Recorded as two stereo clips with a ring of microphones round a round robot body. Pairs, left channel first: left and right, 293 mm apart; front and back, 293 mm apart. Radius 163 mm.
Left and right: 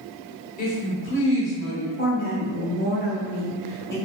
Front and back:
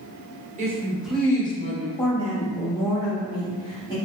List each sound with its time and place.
0.6 s a woman speaking: 130° left, 1.0 m; by 1.9 s 60° left, 1.3 m
2.0 s a woman speaking: 70° left, 1.3 m